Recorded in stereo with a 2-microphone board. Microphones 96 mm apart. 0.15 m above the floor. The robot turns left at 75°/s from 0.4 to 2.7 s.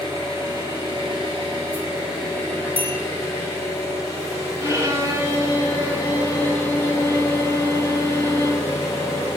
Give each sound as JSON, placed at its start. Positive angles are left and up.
{"t": 0.0, "sound": "an engine running", "azimuth_deg": -40, "distance_m": 2.5}
{"t": 2.8, "sound": "a bell", "side_deg": -60, "distance_m": 1.4}
{"t": 4.6, "sound": "a violin", "side_deg": -25, "distance_m": 0.9}